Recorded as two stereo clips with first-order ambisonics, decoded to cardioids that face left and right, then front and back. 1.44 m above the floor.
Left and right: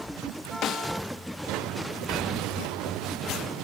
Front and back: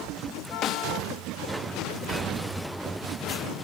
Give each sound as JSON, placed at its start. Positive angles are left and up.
{"t": 0.6, "sound": "a snare drum", "azimuth_deg": 45, "distance_m": 1.2}